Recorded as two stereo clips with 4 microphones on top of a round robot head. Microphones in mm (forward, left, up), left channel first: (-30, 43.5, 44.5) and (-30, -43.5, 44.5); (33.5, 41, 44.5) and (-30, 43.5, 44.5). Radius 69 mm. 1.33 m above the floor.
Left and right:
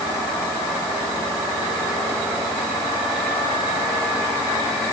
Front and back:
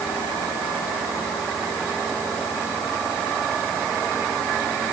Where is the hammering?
I don't hear hammering.